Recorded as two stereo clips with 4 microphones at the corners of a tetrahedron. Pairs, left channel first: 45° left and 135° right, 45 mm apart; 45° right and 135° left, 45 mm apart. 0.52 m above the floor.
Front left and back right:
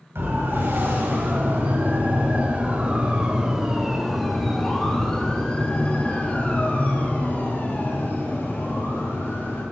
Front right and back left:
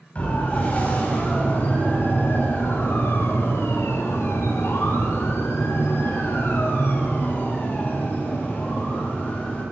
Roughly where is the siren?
Right.